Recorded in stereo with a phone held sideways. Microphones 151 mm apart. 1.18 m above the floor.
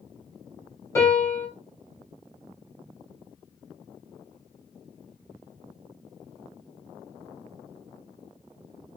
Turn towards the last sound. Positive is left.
turn(degrees=20)  # may be behind; listen again after turning